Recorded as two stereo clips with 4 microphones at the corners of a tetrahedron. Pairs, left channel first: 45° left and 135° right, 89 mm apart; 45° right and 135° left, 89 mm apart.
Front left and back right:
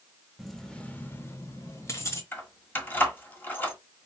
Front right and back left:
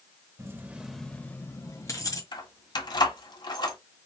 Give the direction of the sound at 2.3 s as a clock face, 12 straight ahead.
1 o'clock.